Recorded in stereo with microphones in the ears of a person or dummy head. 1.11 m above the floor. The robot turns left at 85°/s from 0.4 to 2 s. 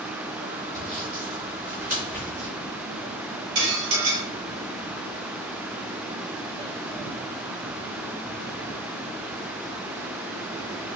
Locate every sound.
0.7 s sawing: 25° right (ahead or behind), 2.0 m; by 2.5 s 40° right (ahead or behind), 2.0 m
3.5 s dishes clattering: 65° right (ahead or behind), 1.2 m